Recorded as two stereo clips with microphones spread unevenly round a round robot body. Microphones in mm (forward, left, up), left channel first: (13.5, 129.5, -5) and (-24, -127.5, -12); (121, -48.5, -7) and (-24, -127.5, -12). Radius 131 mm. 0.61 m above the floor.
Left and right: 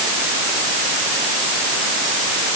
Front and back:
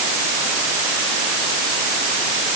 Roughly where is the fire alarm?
I don't hear a fire alarm.